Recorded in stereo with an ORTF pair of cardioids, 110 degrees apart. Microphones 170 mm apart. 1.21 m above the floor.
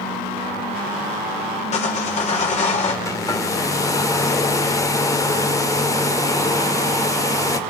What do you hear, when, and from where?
1.7 s sawing: 40° left, 5 m
3.0 s a hair dryer: 20° left, 2 m